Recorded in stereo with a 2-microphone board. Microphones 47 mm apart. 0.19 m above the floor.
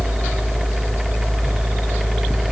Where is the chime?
I don't hear a chime.